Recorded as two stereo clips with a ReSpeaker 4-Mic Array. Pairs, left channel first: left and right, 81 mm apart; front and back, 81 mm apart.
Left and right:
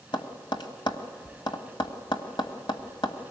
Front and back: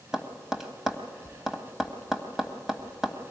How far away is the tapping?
About 1.6 m.